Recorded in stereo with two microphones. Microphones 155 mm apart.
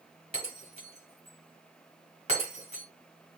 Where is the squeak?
No squeak in this recording.